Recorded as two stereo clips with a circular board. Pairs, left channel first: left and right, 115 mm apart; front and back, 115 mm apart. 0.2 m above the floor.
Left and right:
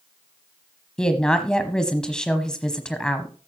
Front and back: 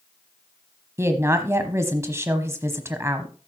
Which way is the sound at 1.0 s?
165° left.